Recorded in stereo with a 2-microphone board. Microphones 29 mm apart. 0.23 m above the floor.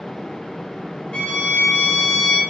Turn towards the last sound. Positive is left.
turn(degrees=35)  # may be behind; listen again after turning